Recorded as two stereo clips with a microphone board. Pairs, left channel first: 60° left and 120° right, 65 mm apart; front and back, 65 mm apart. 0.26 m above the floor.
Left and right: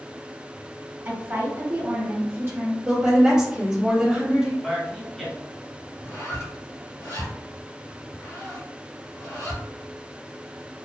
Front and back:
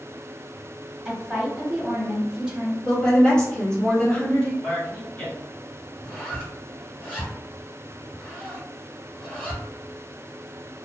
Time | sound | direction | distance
1.1 | a woman speaking | 115° right | 1.1 m
2.9 | a woman speaking | 60° right | 1.4 m
4.6 | a man speaking | 30° right | 1.0 m
6.0 | a zipper | 65° left | 1.7 m